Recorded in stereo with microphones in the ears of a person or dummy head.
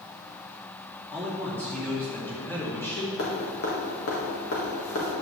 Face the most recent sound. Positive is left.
turn(degrees=70)  # may be behind; listen again after turning